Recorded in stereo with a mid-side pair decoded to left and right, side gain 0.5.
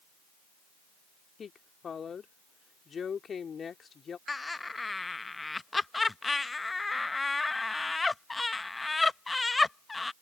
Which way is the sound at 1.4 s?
40° left.